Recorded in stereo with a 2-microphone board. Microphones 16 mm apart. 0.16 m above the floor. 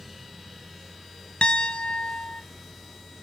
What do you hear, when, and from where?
1.4 s a piano: 65° left (ahead or behind), 0.5 m